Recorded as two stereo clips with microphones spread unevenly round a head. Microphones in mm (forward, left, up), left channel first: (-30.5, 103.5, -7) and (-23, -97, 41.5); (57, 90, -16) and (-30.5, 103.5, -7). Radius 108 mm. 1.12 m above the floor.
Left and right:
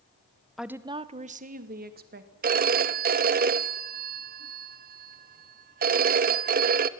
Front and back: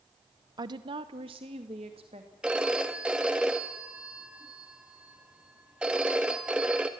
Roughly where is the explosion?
No explosion in this recording.